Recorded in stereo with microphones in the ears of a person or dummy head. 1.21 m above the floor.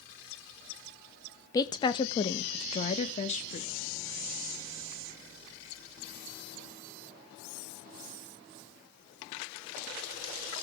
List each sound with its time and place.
1.5 s a woman speaking: 20° left (ahead or behind), 1.0 m; by 3.7 s 40° left (ahead or behind), 2 m